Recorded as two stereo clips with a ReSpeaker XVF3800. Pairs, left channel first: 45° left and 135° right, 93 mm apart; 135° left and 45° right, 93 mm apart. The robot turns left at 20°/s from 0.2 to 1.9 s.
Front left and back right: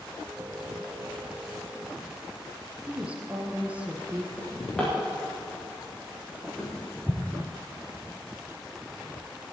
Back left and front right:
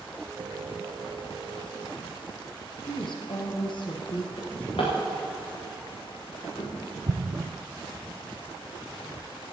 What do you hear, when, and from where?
2.9 s a woman speaking: 150° left, 2.5 m
4.4 s a drawer: 130° left, 5.5 m
7.1 s an explosion: 45° right, 1.1 m